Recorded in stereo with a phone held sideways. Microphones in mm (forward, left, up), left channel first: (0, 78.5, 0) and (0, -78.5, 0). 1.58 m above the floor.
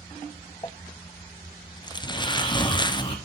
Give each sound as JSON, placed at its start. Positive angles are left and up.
{"t": 0.6, "sound": "crumpling", "side_deg": 30, "distance_m": 0.5}
{"t": 2.0, "sound": "snoring", "side_deg": 35, "distance_m": 2.5}